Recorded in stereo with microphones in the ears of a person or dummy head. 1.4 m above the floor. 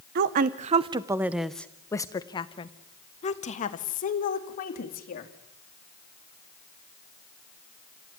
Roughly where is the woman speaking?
Right.